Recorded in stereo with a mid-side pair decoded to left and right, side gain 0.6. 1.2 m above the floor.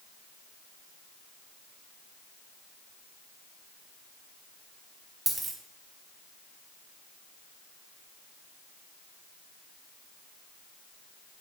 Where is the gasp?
No gasp in this recording.